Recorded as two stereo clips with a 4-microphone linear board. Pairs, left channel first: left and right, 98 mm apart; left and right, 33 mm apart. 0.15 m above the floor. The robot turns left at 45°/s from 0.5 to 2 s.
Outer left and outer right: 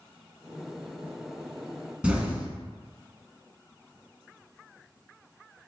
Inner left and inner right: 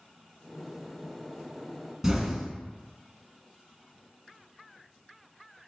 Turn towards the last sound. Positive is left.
turn(degrees=-10)  # may be behind; listen again after turning